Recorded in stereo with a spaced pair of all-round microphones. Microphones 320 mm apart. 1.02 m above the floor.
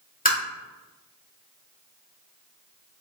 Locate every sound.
0.2 s tapping: 25° left (ahead or behind), 1.8 m